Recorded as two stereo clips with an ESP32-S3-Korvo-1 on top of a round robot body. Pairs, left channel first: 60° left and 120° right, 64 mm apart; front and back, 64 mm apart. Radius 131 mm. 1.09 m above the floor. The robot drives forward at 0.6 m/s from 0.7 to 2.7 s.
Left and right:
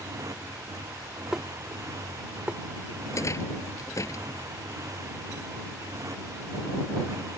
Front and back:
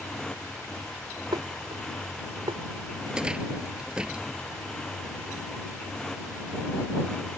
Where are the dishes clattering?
160° left; by 2.6 s 165° left.